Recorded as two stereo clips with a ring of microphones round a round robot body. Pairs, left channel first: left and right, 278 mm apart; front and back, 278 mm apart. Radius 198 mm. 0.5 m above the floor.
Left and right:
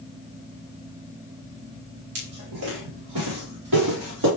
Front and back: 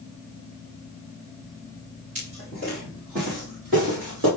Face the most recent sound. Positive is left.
turn(degrees=-120)